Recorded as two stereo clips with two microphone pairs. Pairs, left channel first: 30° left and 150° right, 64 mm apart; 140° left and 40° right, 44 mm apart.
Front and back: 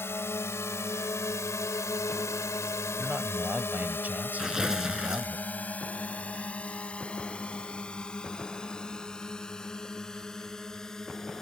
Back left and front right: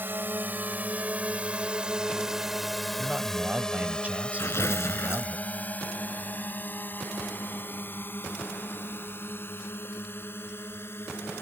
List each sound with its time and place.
0.0 s a drone: 10° right; by 11.4 s 115° left
3.0 s a man speaking: 90° right
4.4 s tearing paper: 130° left